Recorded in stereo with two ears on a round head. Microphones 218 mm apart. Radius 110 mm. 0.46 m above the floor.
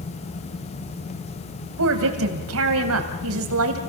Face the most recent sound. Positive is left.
turn(degrees=-60)  # may be behind; listen again after turning